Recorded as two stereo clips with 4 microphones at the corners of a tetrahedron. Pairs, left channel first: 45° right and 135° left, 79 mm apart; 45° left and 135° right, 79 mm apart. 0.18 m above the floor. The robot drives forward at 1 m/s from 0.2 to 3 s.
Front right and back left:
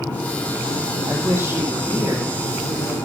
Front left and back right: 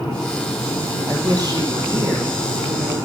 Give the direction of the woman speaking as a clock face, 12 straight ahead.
5 o'clock.